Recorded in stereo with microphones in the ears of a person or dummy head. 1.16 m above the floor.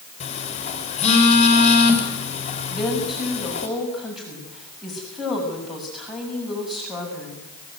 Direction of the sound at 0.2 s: 35° left (ahead or behind).